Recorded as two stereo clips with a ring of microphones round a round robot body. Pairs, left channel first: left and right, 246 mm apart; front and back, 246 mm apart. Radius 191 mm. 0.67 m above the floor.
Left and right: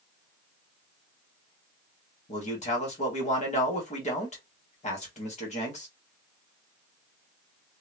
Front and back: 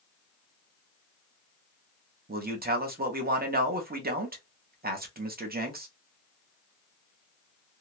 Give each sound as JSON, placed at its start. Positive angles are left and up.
{"t": 2.3, "sound": "a man speaking", "azimuth_deg": 140, "distance_m": 1.0}